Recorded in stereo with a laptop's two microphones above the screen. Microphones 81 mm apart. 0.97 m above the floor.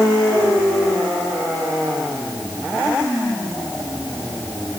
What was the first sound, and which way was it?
Only background noise.